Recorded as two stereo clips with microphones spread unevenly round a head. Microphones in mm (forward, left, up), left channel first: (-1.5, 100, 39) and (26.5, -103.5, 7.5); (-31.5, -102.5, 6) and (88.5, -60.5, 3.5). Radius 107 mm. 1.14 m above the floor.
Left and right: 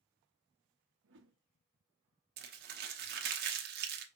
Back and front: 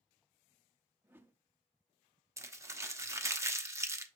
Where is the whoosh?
50° right, 0.7 m.